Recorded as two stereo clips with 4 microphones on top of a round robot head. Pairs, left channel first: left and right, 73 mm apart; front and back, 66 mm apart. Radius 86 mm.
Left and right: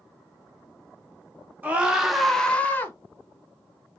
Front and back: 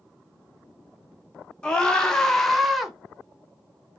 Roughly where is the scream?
Ahead right.